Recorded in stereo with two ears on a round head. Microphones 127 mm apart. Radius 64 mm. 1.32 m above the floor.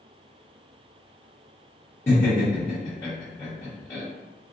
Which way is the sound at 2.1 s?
20° left (ahead or behind).